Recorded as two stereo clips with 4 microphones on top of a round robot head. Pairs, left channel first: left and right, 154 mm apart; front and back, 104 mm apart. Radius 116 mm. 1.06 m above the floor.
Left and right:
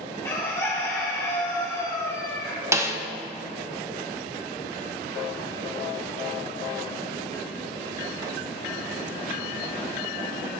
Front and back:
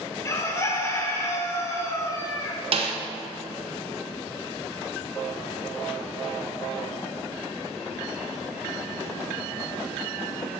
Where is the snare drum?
160° right, 1.4 m.